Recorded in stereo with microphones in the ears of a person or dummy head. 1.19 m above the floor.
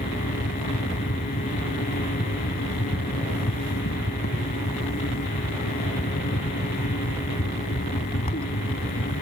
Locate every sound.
0.0 s a fan: 35° left (ahead or behind)